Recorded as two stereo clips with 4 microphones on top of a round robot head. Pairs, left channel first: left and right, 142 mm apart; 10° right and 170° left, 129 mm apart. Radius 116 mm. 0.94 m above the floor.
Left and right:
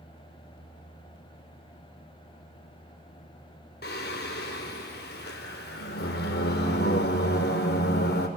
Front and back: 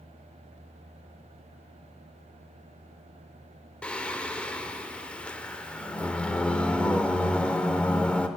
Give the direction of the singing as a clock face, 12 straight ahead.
10 o'clock.